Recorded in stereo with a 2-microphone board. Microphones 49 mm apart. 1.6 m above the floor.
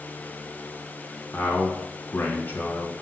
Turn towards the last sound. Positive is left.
turn(degrees=40)  # may be behind; listen again after turning